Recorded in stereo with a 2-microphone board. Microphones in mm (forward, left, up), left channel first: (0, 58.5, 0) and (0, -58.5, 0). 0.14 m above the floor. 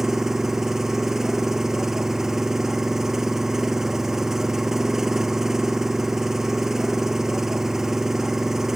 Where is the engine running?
5° right (ahead or behind).